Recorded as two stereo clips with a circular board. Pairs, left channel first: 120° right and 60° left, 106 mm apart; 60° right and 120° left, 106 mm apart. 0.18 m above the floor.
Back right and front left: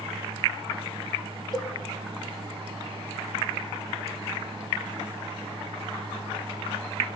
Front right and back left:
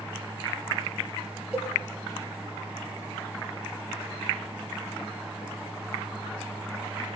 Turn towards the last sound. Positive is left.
turn(degrees=-160)